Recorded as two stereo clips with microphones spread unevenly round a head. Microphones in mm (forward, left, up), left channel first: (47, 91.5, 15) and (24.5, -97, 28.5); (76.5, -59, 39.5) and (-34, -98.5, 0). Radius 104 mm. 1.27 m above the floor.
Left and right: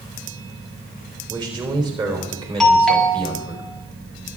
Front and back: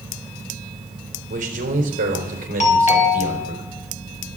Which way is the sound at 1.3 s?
170° right.